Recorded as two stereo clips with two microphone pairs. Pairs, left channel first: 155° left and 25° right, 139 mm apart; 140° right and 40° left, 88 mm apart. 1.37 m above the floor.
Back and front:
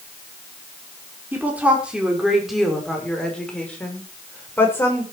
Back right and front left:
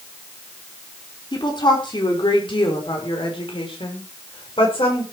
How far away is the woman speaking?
About 4.5 m.